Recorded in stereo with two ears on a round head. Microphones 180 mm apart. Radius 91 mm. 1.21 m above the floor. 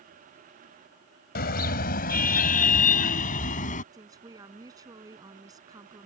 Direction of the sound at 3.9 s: 20° right (ahead or behind).